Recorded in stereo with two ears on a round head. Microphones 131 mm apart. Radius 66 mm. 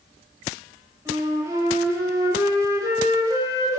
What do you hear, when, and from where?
1.1 s a flute: 15° right (ahead or behind), 2.5 m